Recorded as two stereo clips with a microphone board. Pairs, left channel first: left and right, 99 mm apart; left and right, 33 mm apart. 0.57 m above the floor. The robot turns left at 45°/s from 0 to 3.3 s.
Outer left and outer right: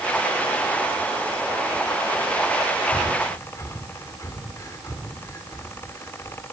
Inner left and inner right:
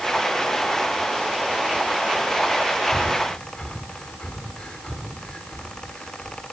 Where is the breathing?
20° left (ahead or behind), 2.0 m; by 6.4 s 35° left (ahead or behind), 2.0 m.